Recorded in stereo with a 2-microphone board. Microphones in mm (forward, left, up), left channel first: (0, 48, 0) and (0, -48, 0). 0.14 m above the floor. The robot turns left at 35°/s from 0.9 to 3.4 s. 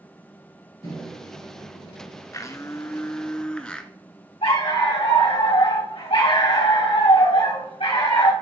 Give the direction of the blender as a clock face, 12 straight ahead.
10 o'clock.